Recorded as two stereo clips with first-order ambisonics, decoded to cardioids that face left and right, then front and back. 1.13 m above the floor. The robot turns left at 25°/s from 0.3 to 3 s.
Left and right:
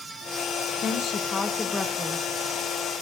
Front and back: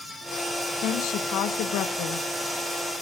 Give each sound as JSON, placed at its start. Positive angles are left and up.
{"t": 0.8, "sound": "a woman speaking", "azimuth_deg": 35, "distance_m": 0.8}